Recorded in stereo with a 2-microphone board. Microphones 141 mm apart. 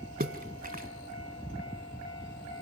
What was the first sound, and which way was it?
A splash, 85° right.